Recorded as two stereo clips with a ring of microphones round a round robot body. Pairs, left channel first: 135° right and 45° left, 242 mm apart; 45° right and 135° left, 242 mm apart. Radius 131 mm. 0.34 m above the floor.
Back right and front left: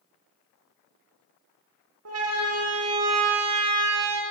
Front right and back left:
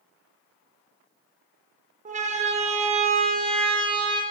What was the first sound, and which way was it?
A siren, 75° left.